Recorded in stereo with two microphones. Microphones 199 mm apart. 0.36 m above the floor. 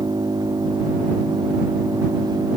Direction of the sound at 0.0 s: 20° right (ahead or behind).